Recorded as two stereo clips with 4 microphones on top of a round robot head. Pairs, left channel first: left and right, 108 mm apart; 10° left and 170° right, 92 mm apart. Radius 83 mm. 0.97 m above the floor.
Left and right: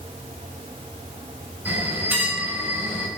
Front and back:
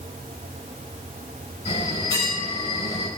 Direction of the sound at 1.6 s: 15° right.